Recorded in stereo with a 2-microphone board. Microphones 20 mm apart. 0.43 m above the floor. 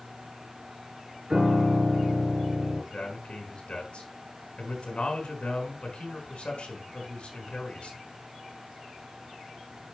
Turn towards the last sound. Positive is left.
turn(degrees=75)  # may be behind; listen again after turning